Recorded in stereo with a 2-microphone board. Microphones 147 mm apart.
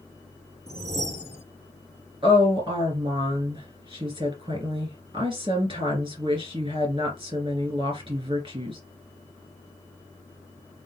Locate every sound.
0.7 s a whoosh: 45° right (ahead or behind), 0.6 m
2.2 s a woman speaking: 35° right (ahead or behind), 2.5 m